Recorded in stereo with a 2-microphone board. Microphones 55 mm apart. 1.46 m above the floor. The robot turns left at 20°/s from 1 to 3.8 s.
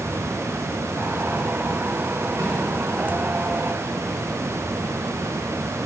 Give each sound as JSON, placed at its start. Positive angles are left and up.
{"t": 2.4, "sound": "a snare drum", "side_deg": -90, "distance_m": 4.5}